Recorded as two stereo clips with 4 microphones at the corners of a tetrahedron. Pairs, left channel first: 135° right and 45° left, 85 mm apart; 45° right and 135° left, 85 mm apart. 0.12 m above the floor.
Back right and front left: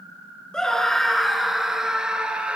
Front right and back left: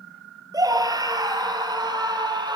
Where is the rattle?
No rattle in this recording.